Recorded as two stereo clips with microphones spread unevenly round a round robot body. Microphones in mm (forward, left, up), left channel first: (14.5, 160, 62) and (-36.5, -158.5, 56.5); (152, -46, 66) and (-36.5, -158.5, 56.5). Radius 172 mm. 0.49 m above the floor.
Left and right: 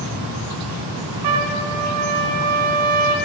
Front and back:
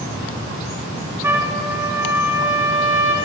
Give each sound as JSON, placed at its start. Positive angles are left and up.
{"t": 1.2, "sound": "a trumpet", "azimuth_deg": -70, "distance_m": 1.1}